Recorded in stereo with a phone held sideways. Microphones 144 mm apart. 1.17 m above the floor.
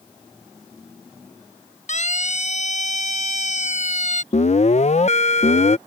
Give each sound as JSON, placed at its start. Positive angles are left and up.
{"t": 1.9, "sound": "a siren", "side_deg": 55}
{"t": 4.3, "sound": "an alarm", "side_deg": 50}